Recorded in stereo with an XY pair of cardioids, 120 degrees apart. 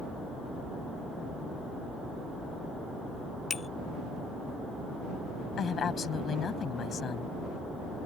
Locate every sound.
3.5 s a bicycle bell: 35° left
5.6 s a woman speaking: 45° left